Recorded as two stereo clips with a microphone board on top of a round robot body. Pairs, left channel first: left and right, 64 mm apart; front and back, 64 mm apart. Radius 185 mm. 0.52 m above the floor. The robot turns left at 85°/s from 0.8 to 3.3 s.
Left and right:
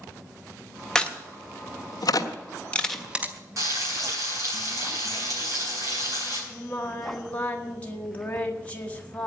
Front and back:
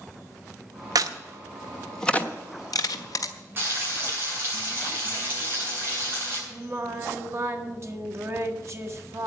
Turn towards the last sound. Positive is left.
turn(degrees=150)